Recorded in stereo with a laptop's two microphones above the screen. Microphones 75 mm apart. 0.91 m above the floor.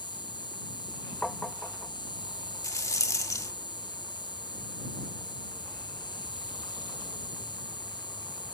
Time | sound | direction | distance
0.0 | an insect | 90° left | ?
1.2 | tapping | 5° left (ahead or behind) | ?
2.6 | a rattle | 45° left (ahead or behind) | ?